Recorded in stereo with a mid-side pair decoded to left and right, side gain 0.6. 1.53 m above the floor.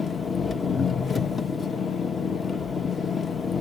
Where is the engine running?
25° left, 0.8 m.